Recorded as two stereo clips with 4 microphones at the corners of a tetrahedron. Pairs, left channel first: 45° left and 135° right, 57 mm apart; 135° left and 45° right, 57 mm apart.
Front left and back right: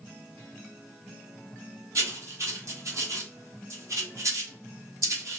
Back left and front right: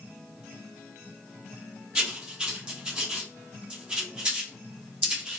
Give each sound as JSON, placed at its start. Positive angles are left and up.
{"t": 1.9, "sound": "writing", "azimuth_deg": -115, "distance_m": 0.9}